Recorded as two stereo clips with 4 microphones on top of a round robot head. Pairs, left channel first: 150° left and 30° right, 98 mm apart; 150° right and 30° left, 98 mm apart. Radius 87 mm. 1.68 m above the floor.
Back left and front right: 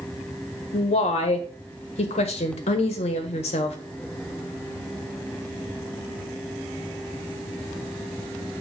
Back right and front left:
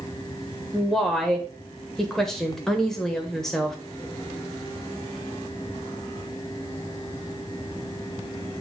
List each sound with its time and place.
0.7 s a woman speaking: 125° left, 1.3 m